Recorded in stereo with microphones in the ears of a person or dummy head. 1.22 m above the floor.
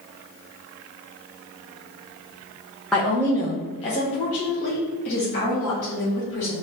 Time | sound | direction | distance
2.9 | a woman speaking | 5° left (ahead or behind) | 0.8 m